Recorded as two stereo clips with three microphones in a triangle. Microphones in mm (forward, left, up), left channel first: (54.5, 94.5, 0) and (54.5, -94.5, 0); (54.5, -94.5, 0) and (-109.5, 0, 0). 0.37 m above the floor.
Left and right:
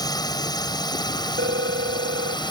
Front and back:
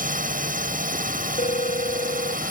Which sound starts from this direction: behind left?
A drone, at 0.0 s.